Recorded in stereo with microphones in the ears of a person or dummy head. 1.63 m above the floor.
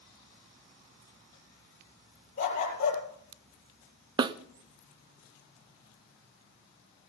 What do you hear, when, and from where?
2.4 s a dog barking: 45° left (ahead or behind), 8.5 m
4.2 s a snare drum: 25° right (ahead or behind), 0.6 m